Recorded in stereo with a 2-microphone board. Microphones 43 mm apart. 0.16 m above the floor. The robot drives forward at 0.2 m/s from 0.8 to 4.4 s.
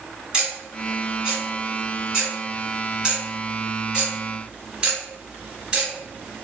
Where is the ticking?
20° right (ahead or behind), 1.9 m; by 6.5 s 15° right (ahead or behind), 2.5 m.